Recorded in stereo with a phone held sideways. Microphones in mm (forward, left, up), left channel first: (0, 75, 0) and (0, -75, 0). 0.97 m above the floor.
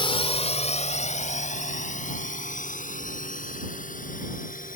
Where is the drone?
35° left (ahead or behind); by 4.8 s 65° left (ahead or behind).